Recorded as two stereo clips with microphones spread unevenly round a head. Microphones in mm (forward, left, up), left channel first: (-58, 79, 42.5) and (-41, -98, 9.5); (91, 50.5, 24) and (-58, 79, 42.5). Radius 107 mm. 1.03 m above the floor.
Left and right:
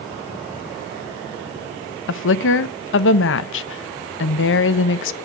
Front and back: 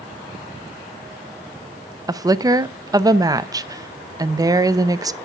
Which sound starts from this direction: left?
A woman speaking, at 2.1 s.